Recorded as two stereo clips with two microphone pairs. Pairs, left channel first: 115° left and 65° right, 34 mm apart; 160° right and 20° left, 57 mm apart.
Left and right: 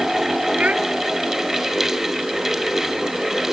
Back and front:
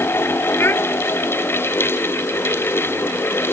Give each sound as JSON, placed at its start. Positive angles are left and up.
{"t": 0.6, "sound": "a child speaking", "azimuth_deg": -115}